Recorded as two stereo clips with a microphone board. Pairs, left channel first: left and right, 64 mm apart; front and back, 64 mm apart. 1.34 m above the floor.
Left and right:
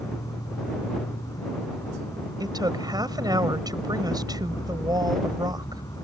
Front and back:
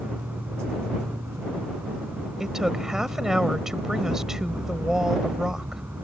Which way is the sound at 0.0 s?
115° left.